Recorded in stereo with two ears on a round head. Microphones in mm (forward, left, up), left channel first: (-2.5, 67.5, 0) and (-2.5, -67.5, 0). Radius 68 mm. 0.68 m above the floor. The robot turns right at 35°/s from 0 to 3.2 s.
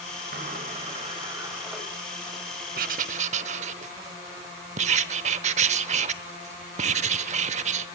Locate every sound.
0.3 s a sliding door: 60° right, 4.5 m; by 1.8 s 5° right, 4.5 m
2.8 s writing: 60° right (ahead or behind), 0.9 m; by 7.9 s 45° right (ahead or behind), 0.9 m